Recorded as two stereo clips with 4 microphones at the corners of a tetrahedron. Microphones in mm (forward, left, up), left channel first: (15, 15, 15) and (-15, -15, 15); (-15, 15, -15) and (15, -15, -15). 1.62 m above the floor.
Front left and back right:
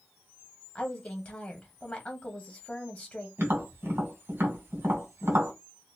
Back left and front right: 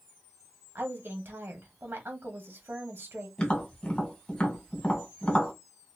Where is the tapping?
160° right, 1.7 m.